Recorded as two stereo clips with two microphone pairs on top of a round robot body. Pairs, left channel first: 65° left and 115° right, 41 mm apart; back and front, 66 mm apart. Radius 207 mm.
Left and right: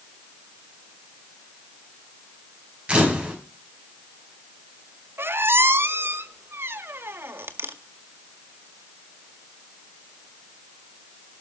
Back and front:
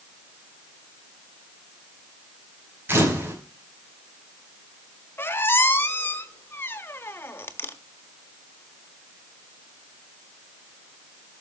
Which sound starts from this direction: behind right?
A squeak, at 5.2 s.